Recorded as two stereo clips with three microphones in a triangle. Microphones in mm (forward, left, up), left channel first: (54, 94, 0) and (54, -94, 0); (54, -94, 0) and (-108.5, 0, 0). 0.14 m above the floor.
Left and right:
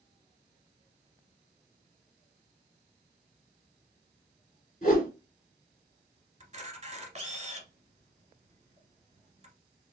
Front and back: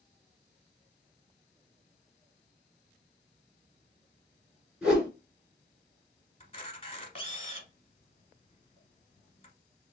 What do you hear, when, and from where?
4.8 s a whoosh: 70° left, 2 m
6.4 s a camera shutter: 65° right, 1.1 m